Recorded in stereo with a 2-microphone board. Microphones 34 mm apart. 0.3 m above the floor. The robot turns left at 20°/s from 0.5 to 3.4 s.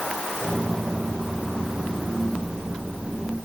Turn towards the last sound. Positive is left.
No sound to turn to.